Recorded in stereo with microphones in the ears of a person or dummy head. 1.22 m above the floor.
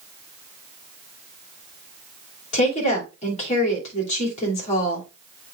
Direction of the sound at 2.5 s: 35° left (ahead or behind).